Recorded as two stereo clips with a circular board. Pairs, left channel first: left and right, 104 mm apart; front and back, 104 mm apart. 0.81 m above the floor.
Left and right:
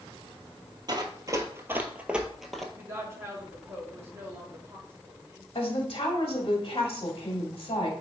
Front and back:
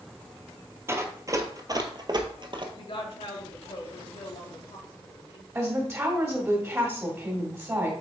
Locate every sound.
0.9 s running footsteps: 120° right, 1.2 m; by 2.6 s 175° left, 1.1 m
2.7 s a woman speaking: 25° right, 1.8 m
5.5 s a woman speaking: 120° left, 1.8 m